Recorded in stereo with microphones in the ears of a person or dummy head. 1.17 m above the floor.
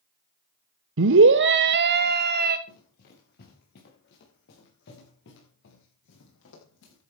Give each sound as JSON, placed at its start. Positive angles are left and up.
{"t": 1.0, "sound": "a scream", "side_deg": -65, "distance_m": 1.0}
{"t": 2.7, "sound": "running footsteps", "side_deg": 55, "distance_m": 7.0}